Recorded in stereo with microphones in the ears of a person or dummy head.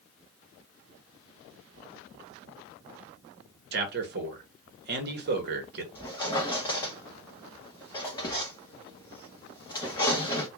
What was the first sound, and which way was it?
A man speaking, 45° right (ahead or behind).